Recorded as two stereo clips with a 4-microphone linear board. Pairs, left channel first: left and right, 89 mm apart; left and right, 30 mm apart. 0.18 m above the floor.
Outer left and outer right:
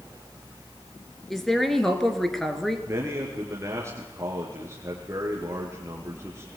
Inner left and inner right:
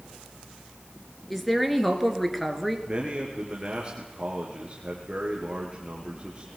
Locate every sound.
1.3 s a woman speaking: centre (ahead or behind), 2.5 m
2.9 s a man speaking: 30° right (ahead or behind), 3.5 m